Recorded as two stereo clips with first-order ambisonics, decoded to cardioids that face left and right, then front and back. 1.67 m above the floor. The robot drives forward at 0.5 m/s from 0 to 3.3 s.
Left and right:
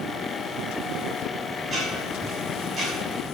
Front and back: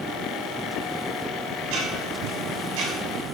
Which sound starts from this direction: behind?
Ticking, at 1.6 s.